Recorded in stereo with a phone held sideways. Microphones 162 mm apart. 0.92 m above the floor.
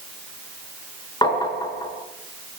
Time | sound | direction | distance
1.2 | tapping | 25° left (ahead or behind) | 5.5 m